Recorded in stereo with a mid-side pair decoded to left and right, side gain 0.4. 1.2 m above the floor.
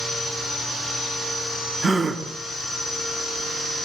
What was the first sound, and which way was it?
A gasp, 45° right.